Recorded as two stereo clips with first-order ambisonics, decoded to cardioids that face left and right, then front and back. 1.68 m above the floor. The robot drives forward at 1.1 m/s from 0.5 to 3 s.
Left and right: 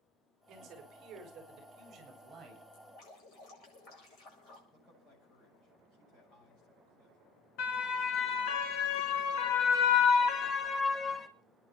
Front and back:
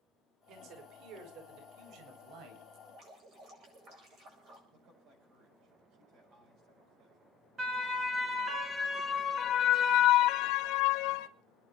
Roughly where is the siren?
Behind left.